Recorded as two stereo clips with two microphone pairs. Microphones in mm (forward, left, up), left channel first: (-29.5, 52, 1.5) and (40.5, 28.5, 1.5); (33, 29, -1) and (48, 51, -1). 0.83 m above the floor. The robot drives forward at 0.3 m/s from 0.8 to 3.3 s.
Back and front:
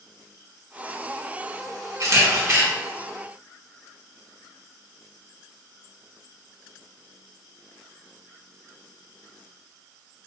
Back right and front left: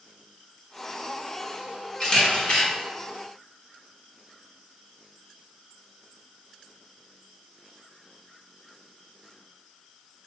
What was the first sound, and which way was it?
A camera shutter, 65° right.